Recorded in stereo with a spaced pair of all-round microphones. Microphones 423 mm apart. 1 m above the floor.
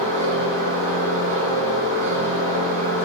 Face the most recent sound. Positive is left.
turn(degrees=-80)